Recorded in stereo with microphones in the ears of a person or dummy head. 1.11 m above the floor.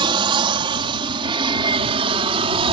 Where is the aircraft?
25° right (ahead or behind); by 2.7 s 30° right (ahead or behind).